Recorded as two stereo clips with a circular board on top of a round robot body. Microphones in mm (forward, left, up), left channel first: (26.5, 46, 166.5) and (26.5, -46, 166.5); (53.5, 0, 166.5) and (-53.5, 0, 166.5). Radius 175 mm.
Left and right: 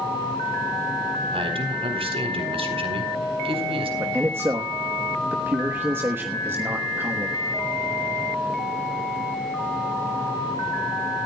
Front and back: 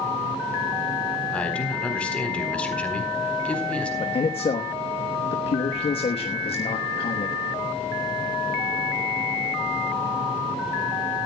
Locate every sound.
1.3 s a man speaking: 80° right, 4 m
4.0 s a man speaking: 25° right, 1.3 m